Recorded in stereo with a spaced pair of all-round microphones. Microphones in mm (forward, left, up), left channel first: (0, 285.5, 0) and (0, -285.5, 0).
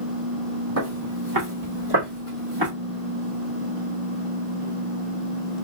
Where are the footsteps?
30° right (ahead or behind), 2.0 m; by 2.7 s 55° right (ahead or behind), 2.0 m.